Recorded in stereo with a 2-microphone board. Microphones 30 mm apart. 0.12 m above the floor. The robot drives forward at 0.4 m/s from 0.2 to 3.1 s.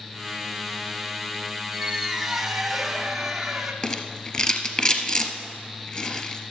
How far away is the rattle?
About 1.1 m.